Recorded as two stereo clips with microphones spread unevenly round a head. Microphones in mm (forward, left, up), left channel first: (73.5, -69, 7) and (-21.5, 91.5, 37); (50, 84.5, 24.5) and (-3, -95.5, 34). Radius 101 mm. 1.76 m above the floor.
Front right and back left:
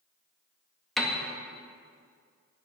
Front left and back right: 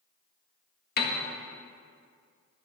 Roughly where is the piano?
Ahead left.